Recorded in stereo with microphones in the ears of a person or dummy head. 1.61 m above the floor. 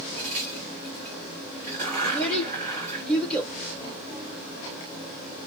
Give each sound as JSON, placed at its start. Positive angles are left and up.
{"t": 0.2, "sound": "a crack", "side_deg": -40, "distance_m": 2.5}
{"t": 2.0, "sound": "a child speaking", "side_deg": 5, "distance_m": 0.8}